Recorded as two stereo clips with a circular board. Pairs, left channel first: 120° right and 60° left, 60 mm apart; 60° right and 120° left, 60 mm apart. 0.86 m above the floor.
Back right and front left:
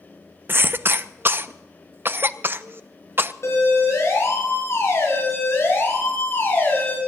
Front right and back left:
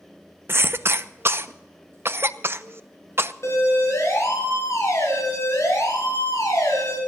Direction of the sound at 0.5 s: 95° left.